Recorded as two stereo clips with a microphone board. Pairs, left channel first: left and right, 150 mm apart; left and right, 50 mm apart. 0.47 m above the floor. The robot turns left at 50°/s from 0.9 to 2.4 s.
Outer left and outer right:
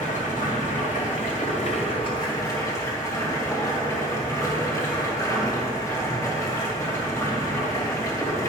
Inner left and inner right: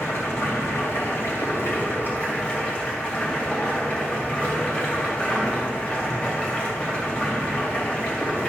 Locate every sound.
0.0 s running water: 100° left, 2 m; by 8.5 s 25° left, 2 m